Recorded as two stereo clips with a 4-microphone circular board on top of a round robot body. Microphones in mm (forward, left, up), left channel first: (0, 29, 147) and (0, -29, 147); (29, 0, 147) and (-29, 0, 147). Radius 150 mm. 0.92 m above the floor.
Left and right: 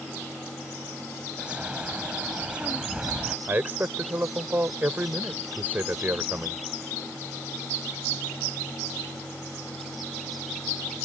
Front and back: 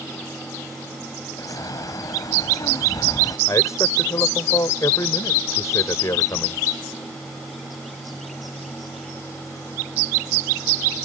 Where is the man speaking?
30° right.